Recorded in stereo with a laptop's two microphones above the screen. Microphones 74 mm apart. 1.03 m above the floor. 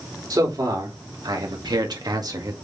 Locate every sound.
0.3 s a man speaking: 65° right (ahead or behind), 3 m; by 2.5 s 50° right (ahead or behind), 1.9 m